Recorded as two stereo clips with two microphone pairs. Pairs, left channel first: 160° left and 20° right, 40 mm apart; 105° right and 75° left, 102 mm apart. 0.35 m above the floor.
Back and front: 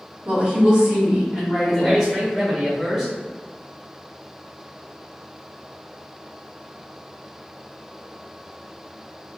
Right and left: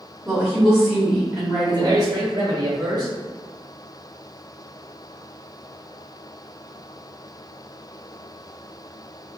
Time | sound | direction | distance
0.2 | a woman speaking | 10° right | 1.2 m
1.7 | a man speaking | 50° left | 1.3 m